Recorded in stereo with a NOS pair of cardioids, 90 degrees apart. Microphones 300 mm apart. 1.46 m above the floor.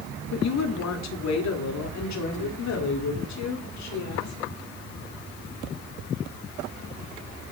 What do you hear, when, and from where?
0.3 s a woman speaking: 60° left, 3.5 m; by 4.3 s 65° left, 5.5 m